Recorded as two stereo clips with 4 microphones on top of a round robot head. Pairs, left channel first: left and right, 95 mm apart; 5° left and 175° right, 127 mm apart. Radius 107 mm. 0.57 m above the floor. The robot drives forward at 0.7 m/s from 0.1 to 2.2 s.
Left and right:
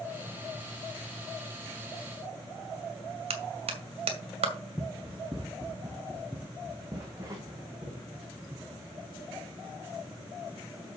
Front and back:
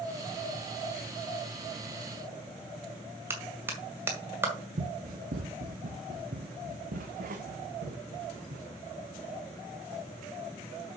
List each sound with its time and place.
3.3 s a clap: 100° right, 2 m
4.8 s running footsteps: straight behind, 1.3 m; by 8.7 s 155° right, 3.5 m